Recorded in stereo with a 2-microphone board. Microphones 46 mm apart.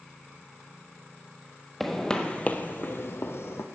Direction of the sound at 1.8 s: 5° left (ahead or behind).